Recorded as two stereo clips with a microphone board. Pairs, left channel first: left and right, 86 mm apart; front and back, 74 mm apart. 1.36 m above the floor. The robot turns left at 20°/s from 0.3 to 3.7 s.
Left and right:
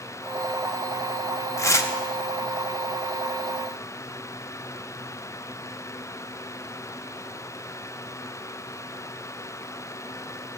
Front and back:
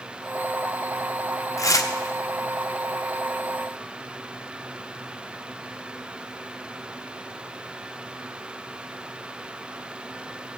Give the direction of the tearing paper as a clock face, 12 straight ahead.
11 o'clock.